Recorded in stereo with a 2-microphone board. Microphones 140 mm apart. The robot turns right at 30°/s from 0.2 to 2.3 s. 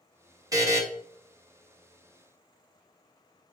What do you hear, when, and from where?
0.5 s a buzzer: 25° right (ahead or behind), 0.9 m; by 0.8 s 20° right (ahead or behind), 0.9 m